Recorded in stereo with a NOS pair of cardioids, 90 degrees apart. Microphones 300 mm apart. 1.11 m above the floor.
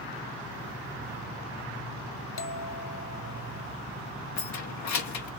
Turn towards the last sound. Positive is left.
turn(degrees=65)